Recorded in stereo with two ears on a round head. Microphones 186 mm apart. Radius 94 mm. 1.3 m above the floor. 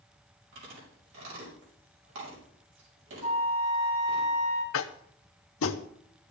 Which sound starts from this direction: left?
Tapping, at 4.7 s.